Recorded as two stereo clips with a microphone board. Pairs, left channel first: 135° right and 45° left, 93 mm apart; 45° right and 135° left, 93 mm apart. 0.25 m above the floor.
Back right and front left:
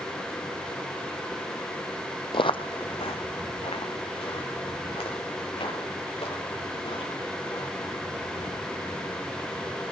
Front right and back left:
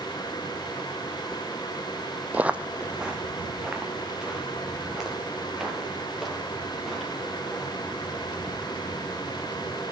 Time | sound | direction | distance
2.3 | footsteps | 150° right | 0.6 m